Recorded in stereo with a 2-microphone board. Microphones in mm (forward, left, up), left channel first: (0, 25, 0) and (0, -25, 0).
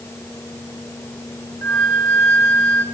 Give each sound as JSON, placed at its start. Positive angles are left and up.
{"t": 1.6, "sound": "a flute", "side_deg": 70, "distance_m": 3.0}